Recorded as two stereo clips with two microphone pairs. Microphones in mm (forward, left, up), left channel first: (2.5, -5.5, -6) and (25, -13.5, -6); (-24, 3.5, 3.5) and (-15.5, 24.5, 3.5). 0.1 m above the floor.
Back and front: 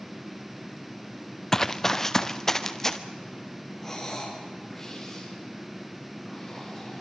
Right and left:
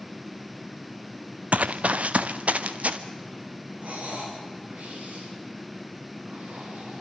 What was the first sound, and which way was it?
Running footsteps, 85° left.